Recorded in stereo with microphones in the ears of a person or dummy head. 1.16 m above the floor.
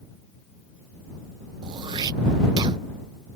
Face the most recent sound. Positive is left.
turn(degrees=-25)  # may be behind; listen again after turning